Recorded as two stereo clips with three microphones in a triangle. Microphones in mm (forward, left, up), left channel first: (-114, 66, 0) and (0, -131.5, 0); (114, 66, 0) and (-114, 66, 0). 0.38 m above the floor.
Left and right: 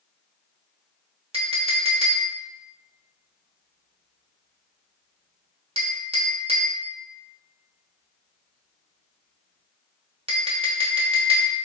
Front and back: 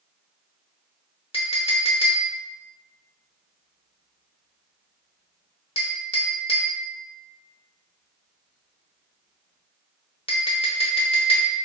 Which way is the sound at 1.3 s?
30° right.